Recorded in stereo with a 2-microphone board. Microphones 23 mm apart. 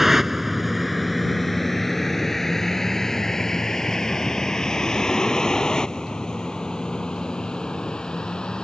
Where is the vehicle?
15° right (ahead or behind); by 8.7 s 40° left (ahead or behind).